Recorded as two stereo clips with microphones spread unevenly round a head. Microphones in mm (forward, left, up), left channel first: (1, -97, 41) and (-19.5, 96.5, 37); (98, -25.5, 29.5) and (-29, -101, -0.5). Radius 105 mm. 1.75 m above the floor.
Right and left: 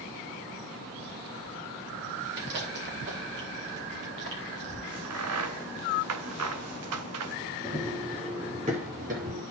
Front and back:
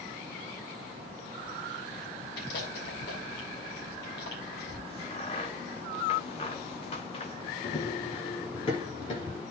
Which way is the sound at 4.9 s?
95° left.